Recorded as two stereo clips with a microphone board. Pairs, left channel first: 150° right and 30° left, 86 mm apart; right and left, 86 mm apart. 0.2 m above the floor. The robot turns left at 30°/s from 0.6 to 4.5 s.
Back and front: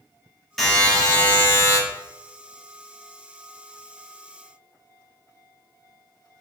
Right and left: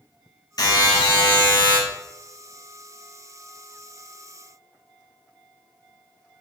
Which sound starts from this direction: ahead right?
A buzzer, at 0.6 s.